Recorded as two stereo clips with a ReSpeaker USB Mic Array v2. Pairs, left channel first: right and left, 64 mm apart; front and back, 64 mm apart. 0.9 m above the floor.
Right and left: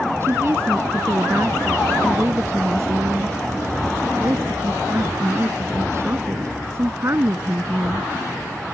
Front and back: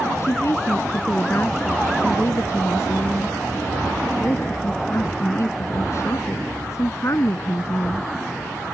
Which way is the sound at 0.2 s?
40° left.